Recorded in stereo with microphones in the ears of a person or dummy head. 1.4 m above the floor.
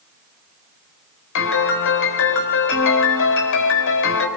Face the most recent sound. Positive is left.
turn(degrees=65)  # may be behind; listen again after turning